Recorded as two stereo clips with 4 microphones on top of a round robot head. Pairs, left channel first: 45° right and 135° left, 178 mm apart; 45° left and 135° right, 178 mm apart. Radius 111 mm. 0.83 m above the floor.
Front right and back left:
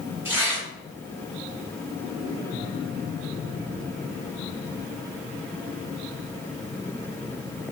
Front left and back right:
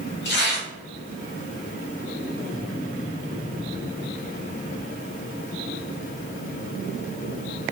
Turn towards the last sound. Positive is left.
turn(degrees=60)